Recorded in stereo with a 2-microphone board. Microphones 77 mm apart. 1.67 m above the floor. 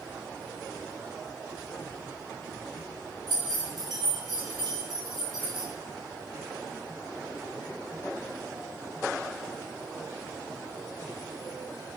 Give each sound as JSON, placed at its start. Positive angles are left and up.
{"t": 3.3, "sound": "keys jangling", "side_deg": -70, "distance_m": 2.0}